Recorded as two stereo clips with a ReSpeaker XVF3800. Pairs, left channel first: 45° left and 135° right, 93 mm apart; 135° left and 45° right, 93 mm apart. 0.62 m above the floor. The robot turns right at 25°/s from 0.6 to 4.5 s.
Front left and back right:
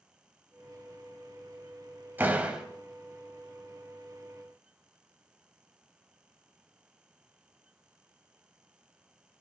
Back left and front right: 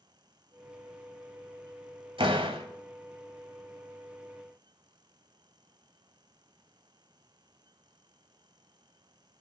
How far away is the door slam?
About 2 m.